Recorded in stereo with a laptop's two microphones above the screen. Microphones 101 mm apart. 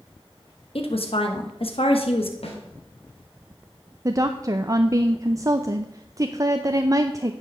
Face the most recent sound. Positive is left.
turn(degrees=-35)  # may be behind; listen again after turning